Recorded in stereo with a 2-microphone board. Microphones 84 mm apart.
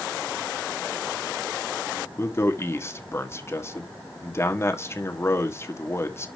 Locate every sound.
2.2 s a man speaking: 30° left (ahead or behind), 1.5 m